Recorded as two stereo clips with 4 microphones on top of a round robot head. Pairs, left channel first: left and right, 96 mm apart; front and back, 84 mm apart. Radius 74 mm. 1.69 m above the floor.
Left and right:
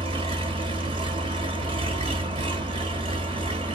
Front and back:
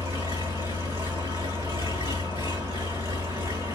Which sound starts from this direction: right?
An engine running, at 0.0 s.